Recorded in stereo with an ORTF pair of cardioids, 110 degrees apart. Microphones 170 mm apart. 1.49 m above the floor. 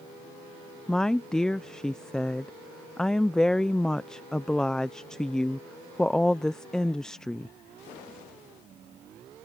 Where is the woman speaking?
5° left.